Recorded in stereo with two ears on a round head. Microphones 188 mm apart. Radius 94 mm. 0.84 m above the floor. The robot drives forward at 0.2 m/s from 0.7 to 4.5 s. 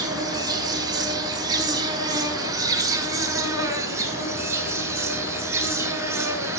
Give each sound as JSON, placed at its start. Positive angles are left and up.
{"t": 0.0, "sound": "an insect", "side_deg": -20, "distance_m": 0.7}